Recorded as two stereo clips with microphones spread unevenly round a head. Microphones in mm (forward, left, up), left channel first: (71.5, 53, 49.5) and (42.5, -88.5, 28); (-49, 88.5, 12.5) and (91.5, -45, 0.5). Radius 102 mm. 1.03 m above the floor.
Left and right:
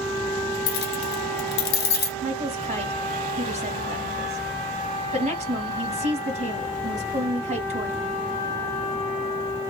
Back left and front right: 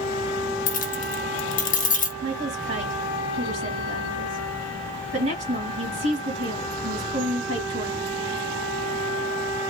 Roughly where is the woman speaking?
Right.